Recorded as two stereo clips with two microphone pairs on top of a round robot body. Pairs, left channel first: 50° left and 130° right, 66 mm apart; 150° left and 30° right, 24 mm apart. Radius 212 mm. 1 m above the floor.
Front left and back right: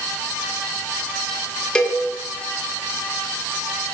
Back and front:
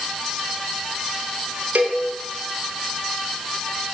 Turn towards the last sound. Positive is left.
turn(degrees=-30)